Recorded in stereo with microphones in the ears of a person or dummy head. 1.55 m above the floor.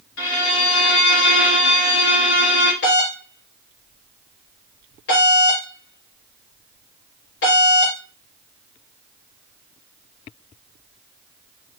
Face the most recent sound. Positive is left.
turn(degrees=60)  # may be behind; listen again after turning